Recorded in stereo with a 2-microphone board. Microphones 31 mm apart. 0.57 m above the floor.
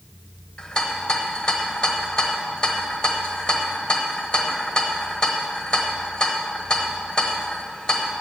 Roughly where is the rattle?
Left.